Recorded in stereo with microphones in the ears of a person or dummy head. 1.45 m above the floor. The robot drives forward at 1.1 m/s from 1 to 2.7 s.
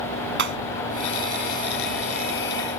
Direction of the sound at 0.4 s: 60° right (ahead or behind).